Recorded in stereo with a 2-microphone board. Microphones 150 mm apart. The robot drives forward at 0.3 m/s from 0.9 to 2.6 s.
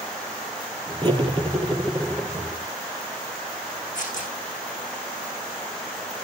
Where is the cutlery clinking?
30° right (ahead or behind), 3 m; by 2.3 s 25° right (ahead or behind), 3.5 m.